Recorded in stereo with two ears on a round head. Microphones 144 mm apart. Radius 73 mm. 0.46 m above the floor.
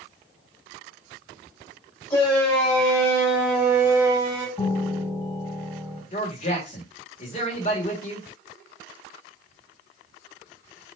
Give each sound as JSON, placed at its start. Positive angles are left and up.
{"t": 2.1, "sound": "a shout", "side_deg": 15, "distance_m": 2.5}
{"t": 4.6, "sound": "a piano", "side_deg": 5, "distance_m": 3.5}
{"t": 6.1, "sound": "a man speaking", "side_deg": 40, "distance_m": 1.5}